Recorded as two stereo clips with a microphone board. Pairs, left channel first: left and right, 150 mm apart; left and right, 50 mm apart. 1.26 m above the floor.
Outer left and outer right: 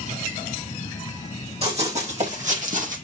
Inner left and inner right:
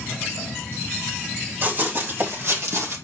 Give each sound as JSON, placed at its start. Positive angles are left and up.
{"t": 1.6, "sound": "running footsteps", "side_deg": -40, "distance_m": 3.0}